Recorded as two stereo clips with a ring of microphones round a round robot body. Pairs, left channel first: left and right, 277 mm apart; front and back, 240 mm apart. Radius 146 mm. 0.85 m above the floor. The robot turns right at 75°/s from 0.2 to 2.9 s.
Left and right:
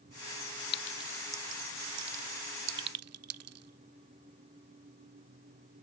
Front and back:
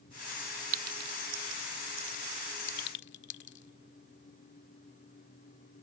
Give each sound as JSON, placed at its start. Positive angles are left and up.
{"t": 0.7, "sound": "a clink", "azimuth_deg": 145}